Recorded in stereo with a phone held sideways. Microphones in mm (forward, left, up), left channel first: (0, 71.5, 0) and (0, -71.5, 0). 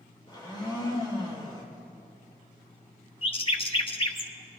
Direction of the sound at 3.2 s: 35° left (ahead or behind).